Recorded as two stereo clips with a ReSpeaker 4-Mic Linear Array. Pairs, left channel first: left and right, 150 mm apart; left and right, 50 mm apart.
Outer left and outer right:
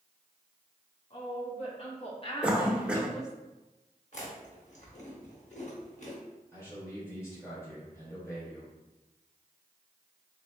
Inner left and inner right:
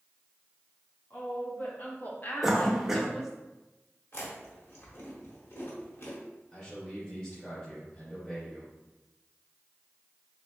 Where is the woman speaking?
45° left (ahead or behind), 1.7 m; by 3.4 s 15° right (ahead or behind), 0.5 m.